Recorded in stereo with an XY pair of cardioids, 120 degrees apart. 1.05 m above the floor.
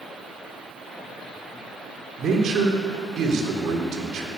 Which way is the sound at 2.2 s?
55° right.